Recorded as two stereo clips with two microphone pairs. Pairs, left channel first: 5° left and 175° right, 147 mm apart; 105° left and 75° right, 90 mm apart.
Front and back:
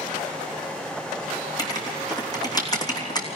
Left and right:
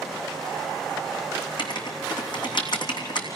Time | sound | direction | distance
1.6 | writing | 70° left | 3 m